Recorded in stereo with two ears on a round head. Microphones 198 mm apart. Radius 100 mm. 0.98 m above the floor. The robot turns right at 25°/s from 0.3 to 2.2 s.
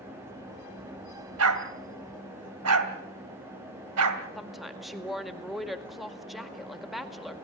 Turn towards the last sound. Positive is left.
turn(degrees=0)  # may be behind; listen again after turning